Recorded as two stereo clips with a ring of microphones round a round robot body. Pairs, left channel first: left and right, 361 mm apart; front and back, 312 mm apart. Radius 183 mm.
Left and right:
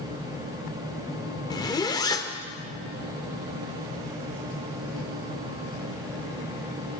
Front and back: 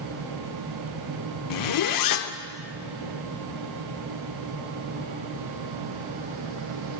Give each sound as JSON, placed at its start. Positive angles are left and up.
{"t": 1.5, "sound": "a zipper", "azimuth_deg": 10, "distance_m": 0.7}